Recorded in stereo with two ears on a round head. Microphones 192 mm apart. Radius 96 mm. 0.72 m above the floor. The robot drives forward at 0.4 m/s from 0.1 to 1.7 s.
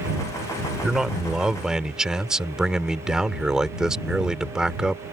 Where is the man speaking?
5° right (ahead or behind).